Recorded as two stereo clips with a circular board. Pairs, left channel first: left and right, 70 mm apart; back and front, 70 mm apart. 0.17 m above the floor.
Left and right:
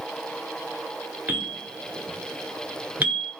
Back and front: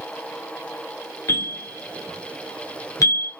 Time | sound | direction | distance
1.3 | a bell | 150° right | 1.9 m